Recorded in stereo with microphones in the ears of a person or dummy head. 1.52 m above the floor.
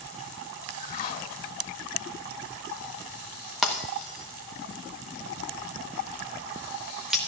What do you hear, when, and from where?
0.7 s a whoosh: 50° left (ahead or behind), 2.0 m
3.6 s breaking glass: centre (ahead or behind), 1.0 m